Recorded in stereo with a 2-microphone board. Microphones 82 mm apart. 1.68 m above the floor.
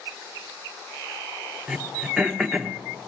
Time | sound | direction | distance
1.7 | throat clearing | 5° right (ahead or behind) | 1.0 m